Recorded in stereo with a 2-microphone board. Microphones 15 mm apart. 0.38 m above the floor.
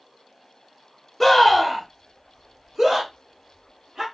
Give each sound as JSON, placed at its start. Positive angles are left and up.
{"t": 1.2, "sound": "a scream", "side_deg": 10, "distance_m": 1.2}